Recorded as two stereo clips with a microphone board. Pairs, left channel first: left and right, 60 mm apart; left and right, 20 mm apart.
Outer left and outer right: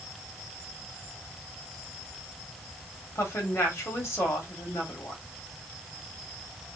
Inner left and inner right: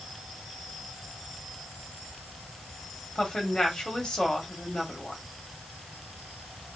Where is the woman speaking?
45° left (ahead or behind), 2 m.